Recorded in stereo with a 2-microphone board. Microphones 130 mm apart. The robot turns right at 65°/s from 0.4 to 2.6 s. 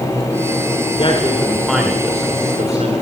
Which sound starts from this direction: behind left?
A man speaking, at 1.0 s.